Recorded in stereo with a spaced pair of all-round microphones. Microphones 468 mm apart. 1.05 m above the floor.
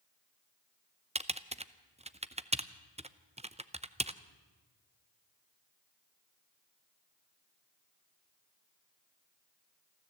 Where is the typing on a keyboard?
15° right (ahead or behind), 0.6 m.